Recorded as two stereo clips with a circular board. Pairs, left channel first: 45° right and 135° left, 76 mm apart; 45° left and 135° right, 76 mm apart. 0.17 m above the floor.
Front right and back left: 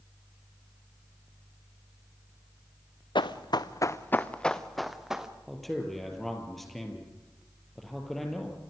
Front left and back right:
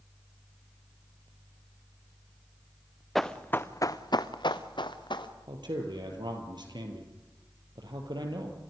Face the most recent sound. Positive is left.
turn(degrees=-135)